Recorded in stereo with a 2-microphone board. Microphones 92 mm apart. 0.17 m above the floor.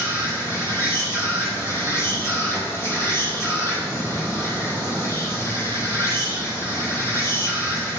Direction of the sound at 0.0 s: 30° left (ahead or behind).